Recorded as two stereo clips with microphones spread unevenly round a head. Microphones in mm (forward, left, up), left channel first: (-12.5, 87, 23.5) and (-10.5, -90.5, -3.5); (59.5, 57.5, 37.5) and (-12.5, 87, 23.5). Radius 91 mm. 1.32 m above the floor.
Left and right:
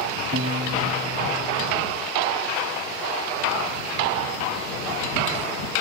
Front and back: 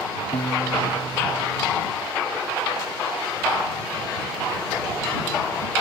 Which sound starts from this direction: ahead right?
A piano, at 0.3 s.